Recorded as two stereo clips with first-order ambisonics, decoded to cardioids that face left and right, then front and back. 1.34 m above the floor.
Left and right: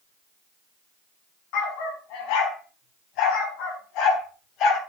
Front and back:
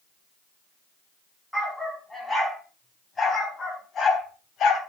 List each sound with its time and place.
1.5 s a dog barking: 85° left, 4 m; by 4.8 s 50° left, 2.5 m